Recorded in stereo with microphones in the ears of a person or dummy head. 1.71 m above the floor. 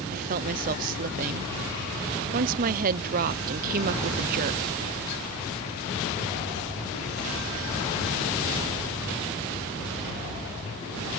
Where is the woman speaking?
50° right (ahead or behind).